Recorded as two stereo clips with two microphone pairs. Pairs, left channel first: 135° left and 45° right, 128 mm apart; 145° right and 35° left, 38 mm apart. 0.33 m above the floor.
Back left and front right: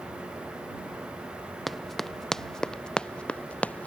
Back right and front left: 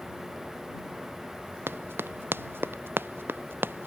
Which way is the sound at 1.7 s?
45° left.